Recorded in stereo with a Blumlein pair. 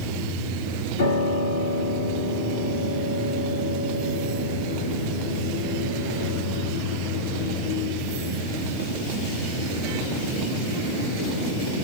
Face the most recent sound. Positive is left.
turn(degrees=60)